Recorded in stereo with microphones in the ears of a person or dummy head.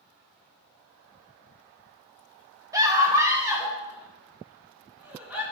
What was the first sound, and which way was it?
A scream, 15° right (ahead or behind).